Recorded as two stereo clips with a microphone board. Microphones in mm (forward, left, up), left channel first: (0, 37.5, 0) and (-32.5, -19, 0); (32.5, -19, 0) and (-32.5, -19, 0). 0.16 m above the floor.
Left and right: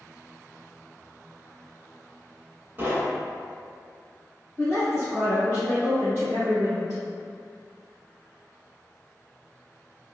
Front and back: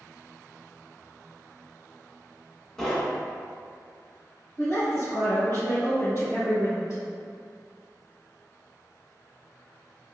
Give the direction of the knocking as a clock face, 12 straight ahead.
3 o'clock.